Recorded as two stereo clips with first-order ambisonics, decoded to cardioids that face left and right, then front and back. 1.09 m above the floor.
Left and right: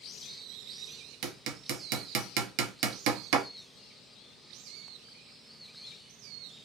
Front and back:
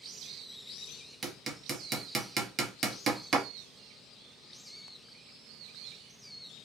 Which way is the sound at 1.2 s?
110° right.